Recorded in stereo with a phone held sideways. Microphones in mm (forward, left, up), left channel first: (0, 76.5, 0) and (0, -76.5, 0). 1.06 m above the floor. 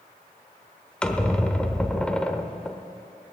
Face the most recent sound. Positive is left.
turn(degrees=5)  # may be behind; listen again after turning